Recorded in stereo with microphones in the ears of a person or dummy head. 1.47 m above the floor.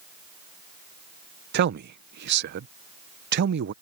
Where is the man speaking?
60° right (ahead or behind).